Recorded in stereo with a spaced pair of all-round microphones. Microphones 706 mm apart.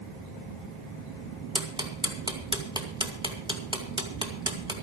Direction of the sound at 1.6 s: 5° right (ahead or behind).